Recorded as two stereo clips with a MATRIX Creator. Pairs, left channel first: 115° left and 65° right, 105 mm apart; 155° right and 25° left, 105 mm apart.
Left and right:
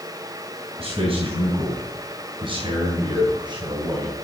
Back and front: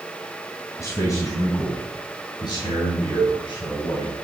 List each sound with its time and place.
0.8 s a man speaking: 95° right, 4 m; by 4.1 s 120° right, 4.5 m
3.2 s a cowbell: 95° right, 2.5 m